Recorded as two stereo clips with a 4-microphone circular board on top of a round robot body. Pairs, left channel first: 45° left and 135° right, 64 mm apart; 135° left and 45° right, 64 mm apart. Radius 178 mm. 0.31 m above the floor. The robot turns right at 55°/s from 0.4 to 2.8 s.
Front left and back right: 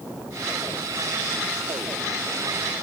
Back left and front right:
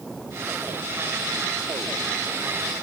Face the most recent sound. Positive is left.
No sound to turn to.